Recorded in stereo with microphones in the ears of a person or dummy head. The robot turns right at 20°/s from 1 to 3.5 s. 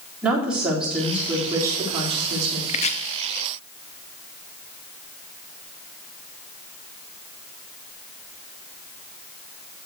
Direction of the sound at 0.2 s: 175° right.